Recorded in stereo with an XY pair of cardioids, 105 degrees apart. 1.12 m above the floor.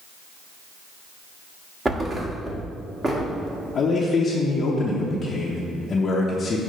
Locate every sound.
1.9 s a thud: 25° right, 1.3 m
3.8 s a man speaking: 45° left, 0.8 m